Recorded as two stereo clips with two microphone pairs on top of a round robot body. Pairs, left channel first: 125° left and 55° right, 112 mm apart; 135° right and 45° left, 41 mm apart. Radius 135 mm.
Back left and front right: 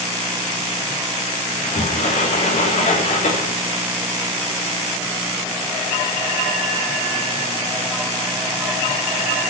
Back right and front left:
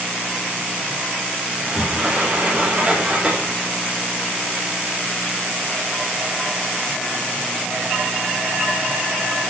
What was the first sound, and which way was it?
A sliding door, 120° left.